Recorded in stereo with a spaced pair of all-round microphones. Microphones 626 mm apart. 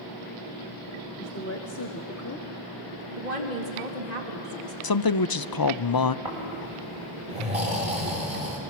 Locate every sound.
1.2 s a woman speaking: 20° left (ahead or behind), 1.3 m
3.2 s a woman speaking: 85° right, 2.5 m
4.8 s a man speaking: 35° left (ahead or behind), 0.5 m
6.2 s snoring: 65° right (ahead or behind), 6 m